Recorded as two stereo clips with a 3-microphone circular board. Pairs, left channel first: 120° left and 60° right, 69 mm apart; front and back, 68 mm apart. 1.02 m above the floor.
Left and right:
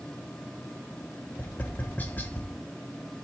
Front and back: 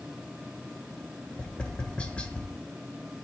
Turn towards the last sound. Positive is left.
turn(degrees=70)